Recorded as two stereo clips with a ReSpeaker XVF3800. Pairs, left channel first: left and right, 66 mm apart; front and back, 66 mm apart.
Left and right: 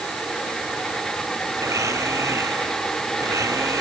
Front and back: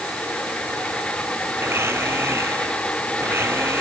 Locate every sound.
1.6 s a blender: 130° right